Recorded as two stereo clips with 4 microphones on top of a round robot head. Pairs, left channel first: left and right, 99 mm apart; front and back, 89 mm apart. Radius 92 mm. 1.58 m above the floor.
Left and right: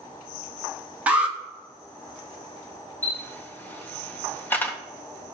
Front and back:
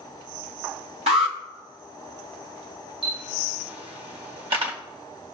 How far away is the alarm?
About 1.9 m.